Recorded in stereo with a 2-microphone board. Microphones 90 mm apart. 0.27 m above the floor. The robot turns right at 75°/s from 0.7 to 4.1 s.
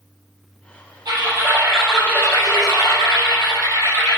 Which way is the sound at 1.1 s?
60° right.